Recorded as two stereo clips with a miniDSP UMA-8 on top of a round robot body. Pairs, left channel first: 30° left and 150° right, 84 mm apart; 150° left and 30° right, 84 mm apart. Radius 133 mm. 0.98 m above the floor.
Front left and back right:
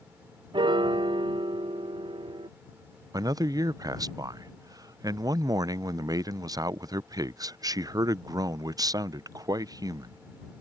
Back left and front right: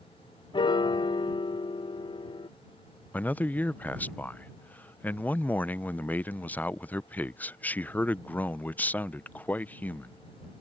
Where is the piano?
Straight behind.